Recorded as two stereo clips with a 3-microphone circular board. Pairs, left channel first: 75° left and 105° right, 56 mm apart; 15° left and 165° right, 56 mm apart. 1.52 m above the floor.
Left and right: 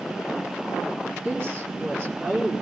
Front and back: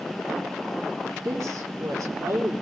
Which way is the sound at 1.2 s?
155° right.